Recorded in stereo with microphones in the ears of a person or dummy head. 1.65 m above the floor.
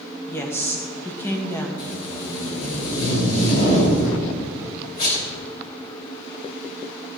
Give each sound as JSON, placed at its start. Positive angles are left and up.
{"t": 0.3, "sound": "a woman speaking", "side_deg": 15, "distance_m": 1.7}
{"t": 1.8, "sound": "tape being pulled", "side_deg": 55, "distance_m": 5.0}